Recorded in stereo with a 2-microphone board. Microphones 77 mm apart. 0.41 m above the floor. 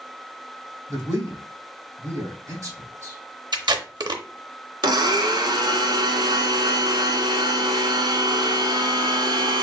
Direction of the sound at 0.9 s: 45° right (ahead or behind).